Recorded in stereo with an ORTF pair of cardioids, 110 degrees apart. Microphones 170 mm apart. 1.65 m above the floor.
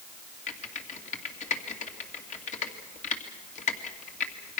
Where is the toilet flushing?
I don't hear a toilet flushing.